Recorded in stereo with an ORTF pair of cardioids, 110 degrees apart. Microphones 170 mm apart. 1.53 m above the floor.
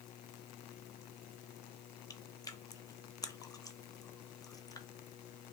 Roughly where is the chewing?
Ahead.